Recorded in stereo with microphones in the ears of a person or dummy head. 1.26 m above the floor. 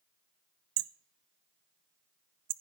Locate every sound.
0.8 s hammering: 50° right (ahead or behind), 0.6 m